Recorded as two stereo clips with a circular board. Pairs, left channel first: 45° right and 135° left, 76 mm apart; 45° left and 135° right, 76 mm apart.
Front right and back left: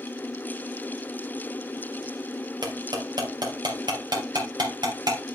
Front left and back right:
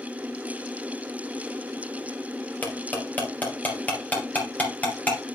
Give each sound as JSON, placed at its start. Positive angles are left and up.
{"t": 2.6, "sound": "cutlery clinking", "azimuth_deg": 110, "distance_m": 3.5}